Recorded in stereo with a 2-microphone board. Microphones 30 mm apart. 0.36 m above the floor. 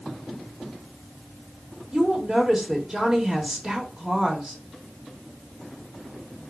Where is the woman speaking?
25° right (ahead or behind), 1.0 m.